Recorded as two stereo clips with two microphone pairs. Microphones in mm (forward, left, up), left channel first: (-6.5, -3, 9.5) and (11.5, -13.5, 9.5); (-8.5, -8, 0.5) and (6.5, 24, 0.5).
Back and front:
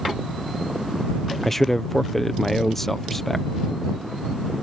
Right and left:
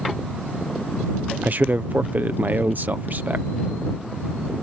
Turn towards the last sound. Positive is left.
turn(degrees=70)